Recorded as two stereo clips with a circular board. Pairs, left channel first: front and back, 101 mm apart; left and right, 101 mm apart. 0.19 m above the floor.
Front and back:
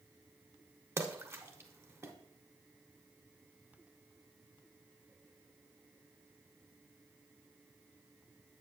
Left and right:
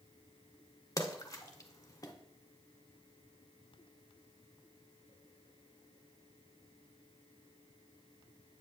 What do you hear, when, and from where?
1.0 s a splash: 130° left, 0.9 m